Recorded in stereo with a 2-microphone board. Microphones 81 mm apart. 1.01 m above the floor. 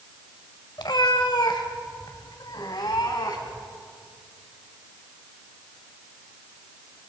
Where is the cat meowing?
70° left (ahead or behind), 1.5 m; by 3.6 s 60° left (ahead or behind), 3.5 m.